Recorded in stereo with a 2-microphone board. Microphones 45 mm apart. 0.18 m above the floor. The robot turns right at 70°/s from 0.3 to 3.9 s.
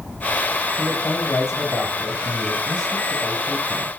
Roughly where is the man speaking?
Ahead left.